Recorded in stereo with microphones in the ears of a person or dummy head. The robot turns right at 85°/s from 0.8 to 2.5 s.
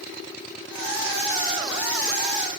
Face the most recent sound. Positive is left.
No sound to turn to.